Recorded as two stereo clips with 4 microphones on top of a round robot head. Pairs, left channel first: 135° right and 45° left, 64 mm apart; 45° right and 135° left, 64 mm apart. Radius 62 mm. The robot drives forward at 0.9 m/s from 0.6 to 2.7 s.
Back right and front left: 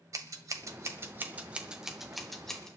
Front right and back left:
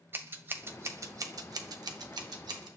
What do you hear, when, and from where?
0.1 s scissors: 80° left, 1.3 m; by 2.7 s 145° left, 2 m